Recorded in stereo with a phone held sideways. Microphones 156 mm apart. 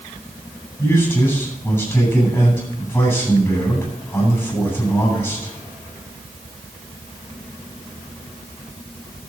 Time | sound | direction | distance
0.8 | a man speaking | 10° left (ahead or behind) | 9 m